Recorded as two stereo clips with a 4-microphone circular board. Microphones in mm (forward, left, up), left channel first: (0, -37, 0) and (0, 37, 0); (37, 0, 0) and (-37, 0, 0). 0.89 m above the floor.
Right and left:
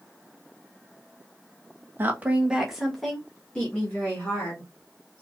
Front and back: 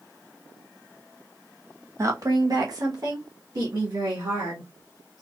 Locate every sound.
2.0 s a woman speaking: 145° left, 0.8 m; by 5.2 s 150° right, 2.0 m